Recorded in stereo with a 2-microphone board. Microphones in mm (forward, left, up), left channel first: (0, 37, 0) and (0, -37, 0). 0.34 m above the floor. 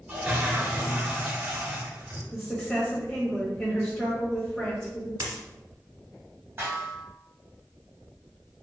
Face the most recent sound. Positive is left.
turn(degrees=-35)  # may be behind; listen again after turning